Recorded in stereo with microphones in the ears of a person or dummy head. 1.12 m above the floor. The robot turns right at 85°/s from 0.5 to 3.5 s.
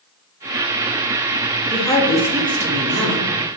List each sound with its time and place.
1.7 s a woman speaking: 145° left, 0.6 m; by 3.3 s 80° right, 0.6 m